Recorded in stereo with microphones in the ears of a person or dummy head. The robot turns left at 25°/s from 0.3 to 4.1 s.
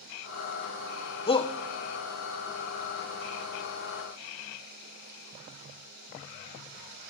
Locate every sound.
1.3 s a shout: 25° left (ahead or behind), 0.6 m; by 1.5 s 30° left (ahead or behind), 0.6 m